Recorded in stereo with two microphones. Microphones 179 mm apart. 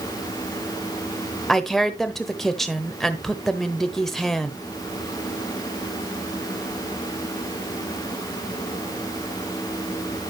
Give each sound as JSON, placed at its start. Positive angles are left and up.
{"t": 1.5, "sound": "a woman speaking", "side_deg": 0, "distance_m": 0.9}